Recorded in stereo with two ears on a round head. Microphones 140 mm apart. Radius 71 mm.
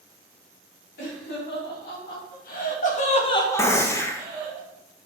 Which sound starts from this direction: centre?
A gunshot, at 3.6 s.